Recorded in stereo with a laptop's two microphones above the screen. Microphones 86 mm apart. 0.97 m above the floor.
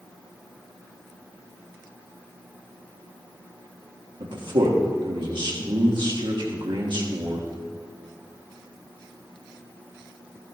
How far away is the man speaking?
About 1.4 m.